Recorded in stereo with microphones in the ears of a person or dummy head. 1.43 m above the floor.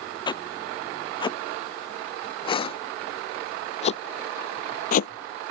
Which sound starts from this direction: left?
Footsteps, at 0.3 s.